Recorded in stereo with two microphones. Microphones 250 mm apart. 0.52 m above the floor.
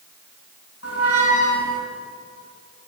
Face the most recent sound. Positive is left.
turn(degrees=65)  # may be behind; listen again after turning